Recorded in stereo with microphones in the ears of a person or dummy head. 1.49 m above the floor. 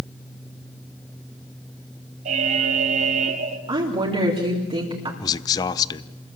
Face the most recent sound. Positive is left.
turn(degrees=25)  # may be behind; listen again after turning